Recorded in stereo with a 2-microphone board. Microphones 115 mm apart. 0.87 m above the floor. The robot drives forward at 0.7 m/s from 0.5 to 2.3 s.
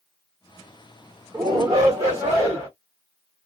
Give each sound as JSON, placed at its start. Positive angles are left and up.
{"t": 1.3, "sound": "a shout", "side_deg": -30, "distance_m": 1.0}